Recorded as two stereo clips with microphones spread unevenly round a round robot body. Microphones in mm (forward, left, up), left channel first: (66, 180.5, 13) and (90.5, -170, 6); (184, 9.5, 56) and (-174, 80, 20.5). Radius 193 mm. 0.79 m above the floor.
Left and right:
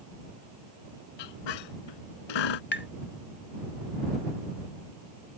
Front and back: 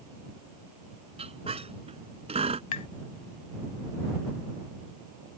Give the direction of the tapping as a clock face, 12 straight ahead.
11 o'clock.